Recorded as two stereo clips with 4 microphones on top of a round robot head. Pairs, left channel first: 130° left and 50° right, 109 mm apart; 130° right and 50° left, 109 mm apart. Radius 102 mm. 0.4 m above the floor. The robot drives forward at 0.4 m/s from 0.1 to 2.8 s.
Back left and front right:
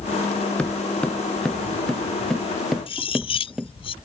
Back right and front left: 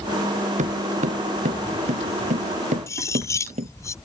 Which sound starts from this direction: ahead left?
Footsteps, at 0.6 s.